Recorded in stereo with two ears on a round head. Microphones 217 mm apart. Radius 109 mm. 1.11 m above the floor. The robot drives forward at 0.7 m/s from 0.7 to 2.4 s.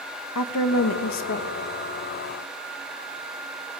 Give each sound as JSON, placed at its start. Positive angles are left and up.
{"t": 0.3, "sound": "a woman speaking", "side_deg": 70, "distance_m": 1.1}